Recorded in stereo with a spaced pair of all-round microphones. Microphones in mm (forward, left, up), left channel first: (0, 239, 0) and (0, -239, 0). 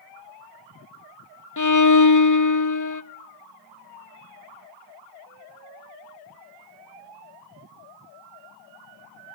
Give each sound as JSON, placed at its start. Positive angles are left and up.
{"t": 1.6, "sound": "a violin", "side_deg": 40, "distance_m": 0.8}